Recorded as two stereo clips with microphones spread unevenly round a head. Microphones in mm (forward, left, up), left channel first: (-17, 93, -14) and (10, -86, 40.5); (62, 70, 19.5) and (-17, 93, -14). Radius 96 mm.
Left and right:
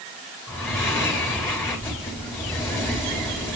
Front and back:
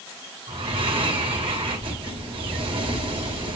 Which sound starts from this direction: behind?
Breathing, at 0.5 s.